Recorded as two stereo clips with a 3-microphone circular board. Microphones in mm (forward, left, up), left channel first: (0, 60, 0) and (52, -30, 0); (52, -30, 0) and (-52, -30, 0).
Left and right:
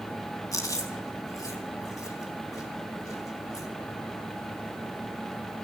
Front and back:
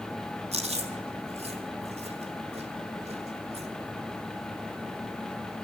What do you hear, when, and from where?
0.5 s chewing: 175° left, 1.8 m